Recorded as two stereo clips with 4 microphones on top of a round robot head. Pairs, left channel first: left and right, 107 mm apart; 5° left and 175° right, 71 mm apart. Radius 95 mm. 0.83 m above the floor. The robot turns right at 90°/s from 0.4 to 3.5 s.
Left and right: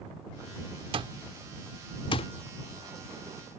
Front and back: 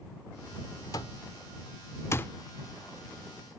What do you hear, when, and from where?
0.9 s an alarm clock: 55° right; by 2.3 s 70° left